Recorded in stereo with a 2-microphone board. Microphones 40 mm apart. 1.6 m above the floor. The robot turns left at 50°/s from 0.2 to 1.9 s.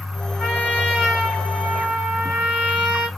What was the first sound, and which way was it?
A trumpet, 35° left.